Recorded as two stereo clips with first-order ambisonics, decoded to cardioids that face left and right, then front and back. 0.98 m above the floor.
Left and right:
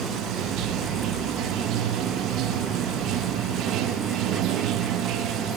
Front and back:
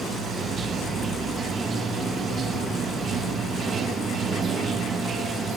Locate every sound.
0.0 s running water: 120° right, 1.1 m